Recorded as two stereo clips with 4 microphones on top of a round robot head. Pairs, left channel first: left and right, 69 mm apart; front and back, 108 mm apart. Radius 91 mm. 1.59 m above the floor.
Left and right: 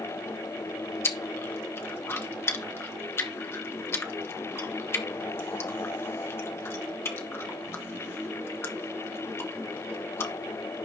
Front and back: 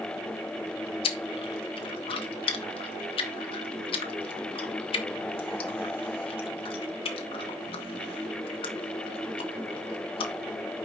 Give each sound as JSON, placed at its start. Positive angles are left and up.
{"t": 1.0, "sound": "chewing", "azimuth_deg": 35, "distance_m": 1.3}